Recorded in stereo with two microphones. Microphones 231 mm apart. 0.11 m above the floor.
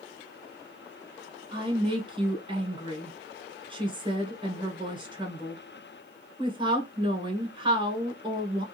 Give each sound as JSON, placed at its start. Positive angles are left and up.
{"t": 1.5, "sound": "a woman speaking", "side_deg": -20, "distance_m": 1.1}